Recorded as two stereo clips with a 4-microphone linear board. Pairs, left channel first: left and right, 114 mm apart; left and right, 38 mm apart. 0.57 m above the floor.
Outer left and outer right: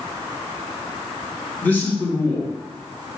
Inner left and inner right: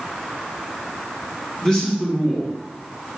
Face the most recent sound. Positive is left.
turn(degrees=15)  # may be behind; listen again after turning